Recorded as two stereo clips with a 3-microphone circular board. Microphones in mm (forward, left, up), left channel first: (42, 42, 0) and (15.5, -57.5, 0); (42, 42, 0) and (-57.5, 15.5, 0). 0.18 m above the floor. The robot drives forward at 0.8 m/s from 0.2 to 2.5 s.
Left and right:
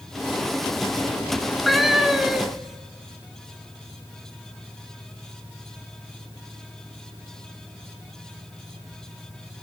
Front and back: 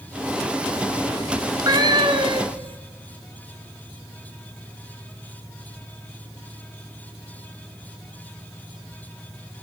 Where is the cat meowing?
165° left, 0.8 m; by 2.8 s 175° left, 1.4 m.